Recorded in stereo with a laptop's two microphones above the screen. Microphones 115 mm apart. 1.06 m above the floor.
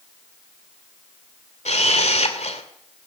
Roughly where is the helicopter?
I don't hear a helicopter.